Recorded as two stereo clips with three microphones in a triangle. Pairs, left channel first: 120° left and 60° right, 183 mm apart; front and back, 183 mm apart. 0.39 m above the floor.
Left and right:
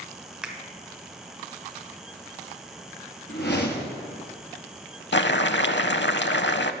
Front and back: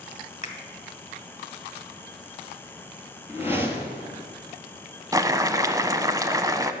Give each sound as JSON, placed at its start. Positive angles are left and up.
{"t": 0.4, "sound": "a finger snap", "azimuth_deg": 25, "distance_m": 1.5}
{"t": 3.3, "sound": "a whoosh", "azimuth_deg": 105, "distance_m": 1.7}
{"t": 5.1, "sound": "boiling", "azimuth_deg": 110, "distance_m": 0.5}